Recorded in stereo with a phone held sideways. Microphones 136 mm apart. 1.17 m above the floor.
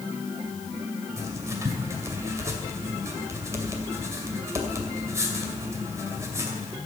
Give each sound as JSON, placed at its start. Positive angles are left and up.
{"t": 1.2, "sound": "writing", "side_deg": -20, "distance_m": 2.5}